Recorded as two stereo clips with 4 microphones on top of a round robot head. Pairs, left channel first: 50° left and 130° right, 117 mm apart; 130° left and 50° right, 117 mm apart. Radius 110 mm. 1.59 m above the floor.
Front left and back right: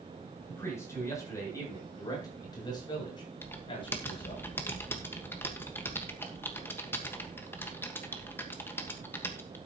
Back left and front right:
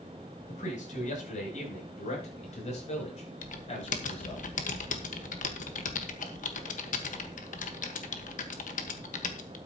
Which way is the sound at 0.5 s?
120° left.